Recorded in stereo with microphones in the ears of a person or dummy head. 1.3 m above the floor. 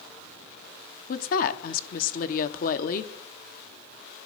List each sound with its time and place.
1.1 s a woman speaking: 45° left (ahead or behind), 0.7 m